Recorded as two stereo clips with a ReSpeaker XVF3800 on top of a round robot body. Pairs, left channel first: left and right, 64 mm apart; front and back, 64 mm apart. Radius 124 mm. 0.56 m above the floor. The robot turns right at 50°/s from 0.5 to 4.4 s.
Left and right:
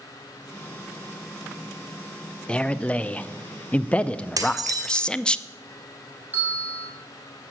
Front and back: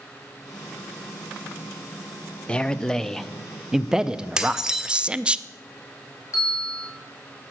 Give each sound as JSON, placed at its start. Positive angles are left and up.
{"t": 2.5, "sound": "a man speaking", "azimuth_deg": 45, "distance_m": 0.6}
{"t": 4.4, "sound": "dishes clattering", "azimuth_deg": -100, "distance_m": 1.3}
{"t": 6.3, "sound": "a bell", "azimuth_deg": -30, "distance_m": 4.0}